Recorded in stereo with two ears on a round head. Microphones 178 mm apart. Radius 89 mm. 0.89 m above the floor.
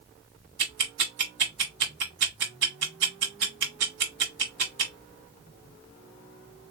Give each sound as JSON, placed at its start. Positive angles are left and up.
{"t": 0.6, "sound": "ticking", "side_deg": -70, "distance_m": 1.7}